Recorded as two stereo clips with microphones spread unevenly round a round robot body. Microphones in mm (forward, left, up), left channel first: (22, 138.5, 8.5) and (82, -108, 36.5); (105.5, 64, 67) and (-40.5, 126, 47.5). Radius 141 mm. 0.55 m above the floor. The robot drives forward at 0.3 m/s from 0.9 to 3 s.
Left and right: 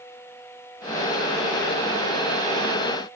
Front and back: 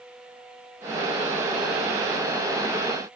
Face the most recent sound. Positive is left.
No sound to turn to.